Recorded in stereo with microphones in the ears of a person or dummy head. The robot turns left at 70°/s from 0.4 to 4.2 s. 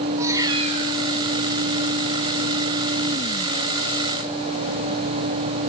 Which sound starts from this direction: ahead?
A cat meowing, at 0.2 s.